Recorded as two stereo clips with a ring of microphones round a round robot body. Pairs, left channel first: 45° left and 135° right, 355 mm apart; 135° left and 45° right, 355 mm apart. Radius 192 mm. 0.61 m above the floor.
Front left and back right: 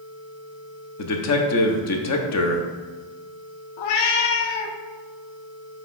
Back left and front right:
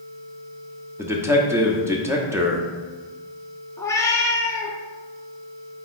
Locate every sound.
1.0 s a man speaking: 35° left, 1.0 m
3.8 s a cat meowing: 55° left, 0.7 m